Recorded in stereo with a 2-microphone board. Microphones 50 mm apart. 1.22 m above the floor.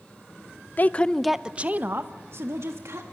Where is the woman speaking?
35° left (ahead or behind), 0.7 m; by 3.0 s 65° right (ahead or behind), 1.8 m.